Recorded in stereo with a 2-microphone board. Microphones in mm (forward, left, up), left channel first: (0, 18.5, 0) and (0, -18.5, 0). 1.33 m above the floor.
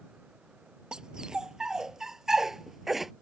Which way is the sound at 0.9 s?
20° right (ahead or behind).